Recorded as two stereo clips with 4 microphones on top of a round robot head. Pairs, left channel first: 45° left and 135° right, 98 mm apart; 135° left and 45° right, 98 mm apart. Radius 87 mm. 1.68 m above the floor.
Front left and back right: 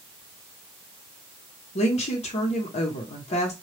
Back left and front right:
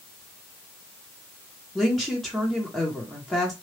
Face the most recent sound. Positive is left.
turn(degrees=45)